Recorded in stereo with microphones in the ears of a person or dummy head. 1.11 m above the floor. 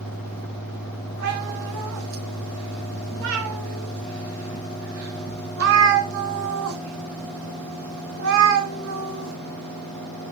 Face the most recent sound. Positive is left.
turn(degrees=-65)  # may be behind; listen again after turning